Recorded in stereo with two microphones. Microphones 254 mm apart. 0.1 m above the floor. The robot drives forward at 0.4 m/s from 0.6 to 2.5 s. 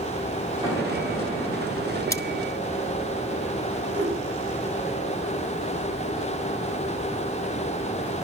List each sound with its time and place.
0.6 s an explosion: 10° right (ahead or behind), 6 m
2.1 s cutlery clinking: 15° left (ahead or behind), 0.7 m
3.9 s a whoosh: 80° right, 10 m